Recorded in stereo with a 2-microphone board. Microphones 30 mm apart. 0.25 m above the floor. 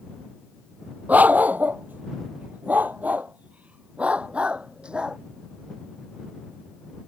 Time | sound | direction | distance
1.1 | a dog barking | 65° right (ahead or behind) | ?